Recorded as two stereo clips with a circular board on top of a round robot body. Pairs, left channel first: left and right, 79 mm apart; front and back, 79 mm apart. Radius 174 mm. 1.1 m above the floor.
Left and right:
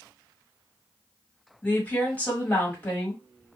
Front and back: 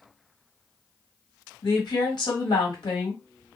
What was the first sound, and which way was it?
A woman speaking, 20° left.